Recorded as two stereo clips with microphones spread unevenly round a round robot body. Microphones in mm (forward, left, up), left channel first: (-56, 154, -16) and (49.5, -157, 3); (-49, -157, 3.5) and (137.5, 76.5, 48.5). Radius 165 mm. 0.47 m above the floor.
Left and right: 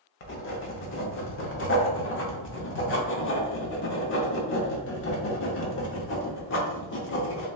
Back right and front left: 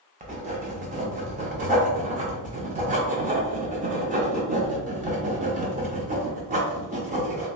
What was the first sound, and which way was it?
Writing, 115° left.